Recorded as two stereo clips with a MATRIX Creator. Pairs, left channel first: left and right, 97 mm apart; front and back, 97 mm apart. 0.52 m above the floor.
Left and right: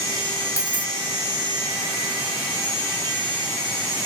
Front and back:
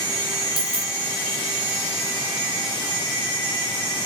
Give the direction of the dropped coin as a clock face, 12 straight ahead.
7 o'clock.